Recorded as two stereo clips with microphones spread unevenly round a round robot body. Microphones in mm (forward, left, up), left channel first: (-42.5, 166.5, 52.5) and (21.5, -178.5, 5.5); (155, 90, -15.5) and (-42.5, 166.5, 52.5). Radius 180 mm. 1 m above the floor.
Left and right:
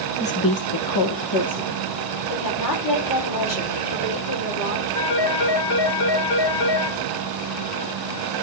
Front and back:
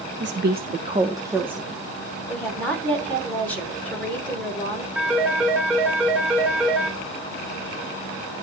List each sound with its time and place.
0.2 s a woman speaking: 175° left, 0.9 m; by 1.8 s 65° left, 2 m
2.3 s a woman speaking: 60° left, 3.5 m
5.0 s a phone ringing: 75° left, 2.5 m